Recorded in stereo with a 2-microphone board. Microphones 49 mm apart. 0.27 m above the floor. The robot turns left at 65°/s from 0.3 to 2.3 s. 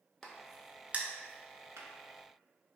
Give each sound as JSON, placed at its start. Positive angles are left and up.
{"t": 0.2, "sound": "a crack", "side_deg": 10, "distance_m": 0.5}